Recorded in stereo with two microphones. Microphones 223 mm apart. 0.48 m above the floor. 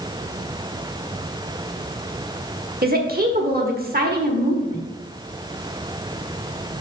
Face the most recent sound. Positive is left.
turn(degrees=-40)  # may be behind; listen again after turning